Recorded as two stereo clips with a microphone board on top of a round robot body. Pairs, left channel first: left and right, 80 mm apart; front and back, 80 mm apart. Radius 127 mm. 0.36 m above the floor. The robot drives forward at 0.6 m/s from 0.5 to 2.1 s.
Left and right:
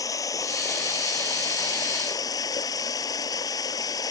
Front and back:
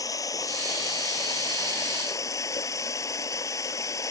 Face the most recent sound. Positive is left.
turn(degrees=50)